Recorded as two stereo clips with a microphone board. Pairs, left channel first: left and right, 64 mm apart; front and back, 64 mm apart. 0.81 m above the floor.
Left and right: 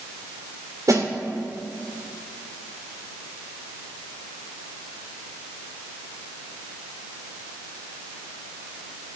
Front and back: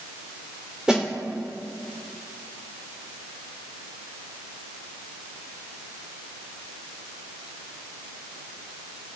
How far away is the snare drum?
About 3 m.